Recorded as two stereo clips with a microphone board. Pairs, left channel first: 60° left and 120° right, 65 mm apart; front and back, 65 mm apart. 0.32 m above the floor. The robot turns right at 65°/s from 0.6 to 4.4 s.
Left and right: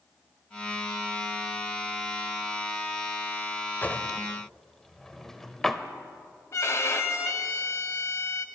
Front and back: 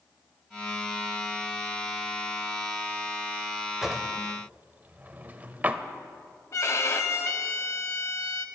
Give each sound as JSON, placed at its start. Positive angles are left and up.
{"t": 3.8, "sound": "a drawer", "azimuth_deg": 100, "distance_m": 0.6}
{"t": 6.5, "sound": "a violin", "azimuth_deg": 30, "distance_m": 0.8}